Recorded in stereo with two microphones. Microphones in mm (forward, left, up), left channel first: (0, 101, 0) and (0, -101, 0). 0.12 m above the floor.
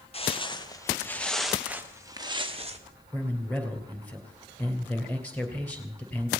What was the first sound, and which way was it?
Footsteps, 30° left (ahead or behind).